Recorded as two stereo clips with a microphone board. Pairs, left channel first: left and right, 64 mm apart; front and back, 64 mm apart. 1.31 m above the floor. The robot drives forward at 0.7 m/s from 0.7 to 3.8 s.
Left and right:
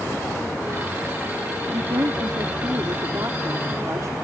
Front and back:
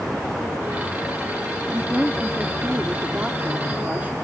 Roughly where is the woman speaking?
Right.